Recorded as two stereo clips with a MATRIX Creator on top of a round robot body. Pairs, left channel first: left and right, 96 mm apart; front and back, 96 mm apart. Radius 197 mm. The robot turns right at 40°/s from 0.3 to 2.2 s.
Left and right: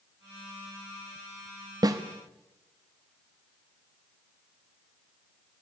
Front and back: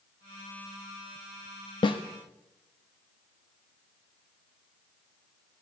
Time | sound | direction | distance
1.8 | a snare drum | 40° right | 1.2 m